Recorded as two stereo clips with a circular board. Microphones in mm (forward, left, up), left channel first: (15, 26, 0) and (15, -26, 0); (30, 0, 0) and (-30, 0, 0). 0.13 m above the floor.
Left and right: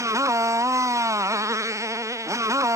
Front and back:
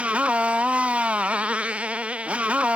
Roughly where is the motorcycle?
Right.